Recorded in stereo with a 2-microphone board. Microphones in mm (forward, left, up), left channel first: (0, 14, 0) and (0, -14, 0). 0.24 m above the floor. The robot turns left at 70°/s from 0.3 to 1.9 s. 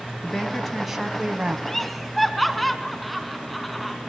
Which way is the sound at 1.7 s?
15° left (ahead or behind).